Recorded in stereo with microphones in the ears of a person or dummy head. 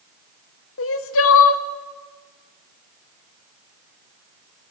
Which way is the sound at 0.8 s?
65° left (ahead or behind).